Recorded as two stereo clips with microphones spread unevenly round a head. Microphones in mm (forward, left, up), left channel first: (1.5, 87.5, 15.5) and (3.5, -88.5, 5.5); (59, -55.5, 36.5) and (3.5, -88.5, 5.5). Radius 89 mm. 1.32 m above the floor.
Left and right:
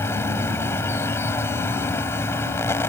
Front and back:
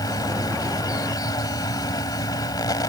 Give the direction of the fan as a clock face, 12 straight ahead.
12 o'clock.